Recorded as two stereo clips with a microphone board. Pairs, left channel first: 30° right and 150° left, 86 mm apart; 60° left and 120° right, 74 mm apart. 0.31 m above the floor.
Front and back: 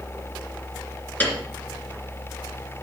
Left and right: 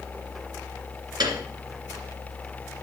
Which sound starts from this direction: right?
A piano, at 1.2 s.